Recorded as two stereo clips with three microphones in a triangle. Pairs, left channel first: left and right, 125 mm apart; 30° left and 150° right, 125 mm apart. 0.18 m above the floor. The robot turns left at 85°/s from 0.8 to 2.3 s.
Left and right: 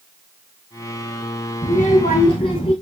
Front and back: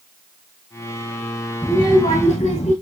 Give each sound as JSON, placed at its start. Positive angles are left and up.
{"t": 1.6, "sound": "a child speaking", "azimuth_deg": 105, "distance_m": 3.0}